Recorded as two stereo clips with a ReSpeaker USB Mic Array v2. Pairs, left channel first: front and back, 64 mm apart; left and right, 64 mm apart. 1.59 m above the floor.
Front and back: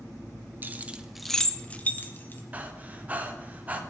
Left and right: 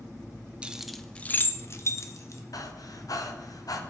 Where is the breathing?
115° left, 0.9 m.